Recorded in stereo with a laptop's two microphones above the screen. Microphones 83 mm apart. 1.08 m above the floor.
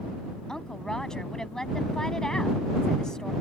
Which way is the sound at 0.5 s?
5° left (ahead or behind).